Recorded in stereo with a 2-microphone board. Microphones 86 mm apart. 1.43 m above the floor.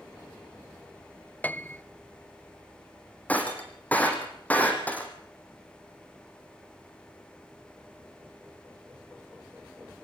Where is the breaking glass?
15° left (ahead or behind), 4 m.